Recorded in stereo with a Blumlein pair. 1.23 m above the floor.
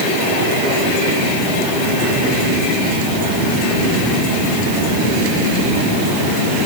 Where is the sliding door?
No sliding door in this recording.